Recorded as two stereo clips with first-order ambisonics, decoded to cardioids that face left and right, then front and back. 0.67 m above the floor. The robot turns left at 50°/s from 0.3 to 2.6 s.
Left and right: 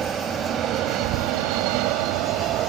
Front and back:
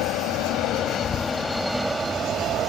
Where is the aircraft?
25° right; by 2.7 s 130° right.